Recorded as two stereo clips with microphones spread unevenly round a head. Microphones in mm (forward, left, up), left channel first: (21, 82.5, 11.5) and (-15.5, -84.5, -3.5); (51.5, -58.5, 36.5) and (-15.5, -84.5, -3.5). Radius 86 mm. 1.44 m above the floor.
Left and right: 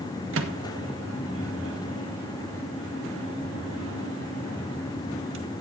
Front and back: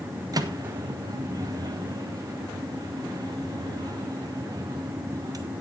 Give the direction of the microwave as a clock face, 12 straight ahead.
4 o'clock.